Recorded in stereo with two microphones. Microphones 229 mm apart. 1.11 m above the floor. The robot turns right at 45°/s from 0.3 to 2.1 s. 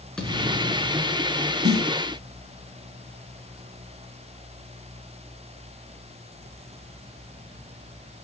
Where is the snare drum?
80° right, 2.5 m; by 1.9 s 70° right (ahead or behind), 2.5 m.